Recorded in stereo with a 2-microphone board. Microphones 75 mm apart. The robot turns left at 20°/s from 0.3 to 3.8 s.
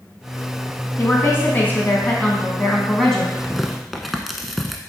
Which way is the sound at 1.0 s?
50° left.